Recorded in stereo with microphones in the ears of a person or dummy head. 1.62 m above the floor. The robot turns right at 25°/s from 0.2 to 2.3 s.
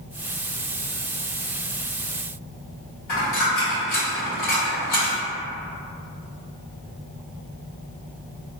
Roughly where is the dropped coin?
Left.